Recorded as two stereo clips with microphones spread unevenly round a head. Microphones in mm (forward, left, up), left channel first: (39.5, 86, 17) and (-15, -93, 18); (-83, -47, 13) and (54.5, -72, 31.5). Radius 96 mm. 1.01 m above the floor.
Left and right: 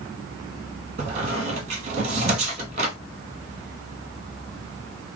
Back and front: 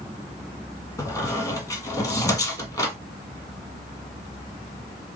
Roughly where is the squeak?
Behind right.